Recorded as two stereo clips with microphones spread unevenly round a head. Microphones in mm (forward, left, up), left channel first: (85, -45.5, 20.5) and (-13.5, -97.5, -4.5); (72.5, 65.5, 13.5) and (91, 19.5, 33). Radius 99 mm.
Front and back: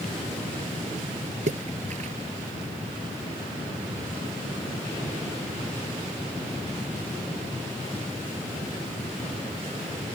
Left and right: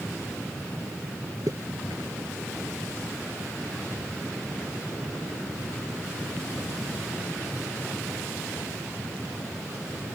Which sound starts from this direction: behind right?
A splash, at 1.5 s.